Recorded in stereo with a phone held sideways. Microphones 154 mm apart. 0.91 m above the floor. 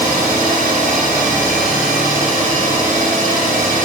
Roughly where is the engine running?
Right.